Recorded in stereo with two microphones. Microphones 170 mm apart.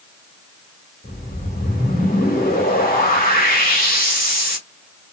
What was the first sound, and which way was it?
A whoosh, 55° left (ahead or behind).